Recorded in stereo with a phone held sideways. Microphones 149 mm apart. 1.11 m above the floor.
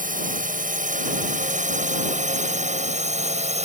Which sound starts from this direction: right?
A drone, at 0.0 s.